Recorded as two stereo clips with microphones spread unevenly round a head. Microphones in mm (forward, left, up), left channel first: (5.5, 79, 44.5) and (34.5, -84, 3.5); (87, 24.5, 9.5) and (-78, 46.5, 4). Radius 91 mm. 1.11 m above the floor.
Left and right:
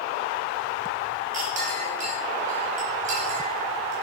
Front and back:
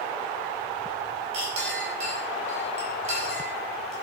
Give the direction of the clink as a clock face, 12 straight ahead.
4 o'clock.